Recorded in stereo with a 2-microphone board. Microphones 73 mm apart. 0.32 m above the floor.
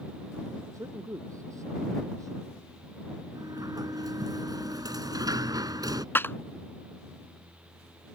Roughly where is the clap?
Left.